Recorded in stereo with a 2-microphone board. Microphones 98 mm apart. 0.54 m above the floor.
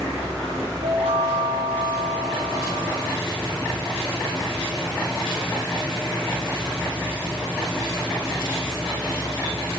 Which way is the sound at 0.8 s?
75° right (ahead or behind).